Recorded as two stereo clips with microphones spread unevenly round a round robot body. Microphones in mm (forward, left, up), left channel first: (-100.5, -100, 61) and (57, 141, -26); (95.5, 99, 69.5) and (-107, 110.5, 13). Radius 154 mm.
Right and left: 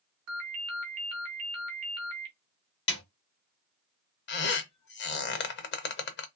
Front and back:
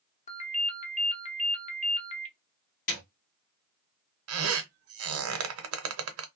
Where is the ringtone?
60° left, 1.1 m.